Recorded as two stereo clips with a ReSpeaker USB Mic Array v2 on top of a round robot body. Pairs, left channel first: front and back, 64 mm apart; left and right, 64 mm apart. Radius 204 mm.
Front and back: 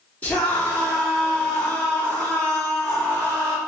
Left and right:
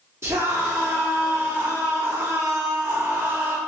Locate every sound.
0.2 s a scream: 60° right, 2 m